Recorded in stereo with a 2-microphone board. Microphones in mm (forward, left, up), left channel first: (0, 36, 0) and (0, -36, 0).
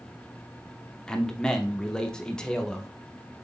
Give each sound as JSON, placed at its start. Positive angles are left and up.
{"t": 1.1, "sound": "a man speaking", "side_deg": 10, "distance_m": 0.7}